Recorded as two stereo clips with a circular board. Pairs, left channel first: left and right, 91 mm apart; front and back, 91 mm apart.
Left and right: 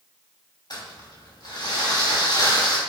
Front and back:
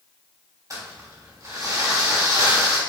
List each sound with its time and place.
0.7 s crumpling: 130° left, 3 m